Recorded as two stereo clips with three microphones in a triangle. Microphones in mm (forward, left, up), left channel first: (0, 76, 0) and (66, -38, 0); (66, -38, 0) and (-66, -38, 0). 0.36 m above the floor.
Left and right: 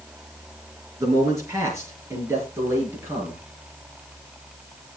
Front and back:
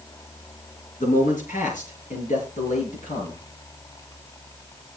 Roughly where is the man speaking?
Ahead.